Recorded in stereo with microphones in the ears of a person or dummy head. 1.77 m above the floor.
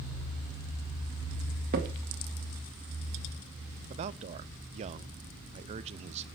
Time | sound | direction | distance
1.7 | a crack | 55° right (ahead or behind) | 2 m
3.9 | a man speaking | 40° right (ahead or behind) | 0.8 m